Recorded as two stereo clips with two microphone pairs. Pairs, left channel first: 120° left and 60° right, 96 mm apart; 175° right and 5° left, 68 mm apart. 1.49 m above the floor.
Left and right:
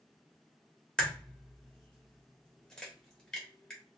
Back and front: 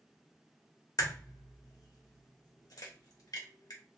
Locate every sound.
1.0 s a crack: 160° right, 1.0 m